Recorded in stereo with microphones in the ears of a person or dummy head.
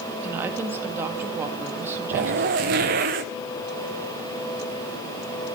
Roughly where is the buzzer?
No buzzer in this recording.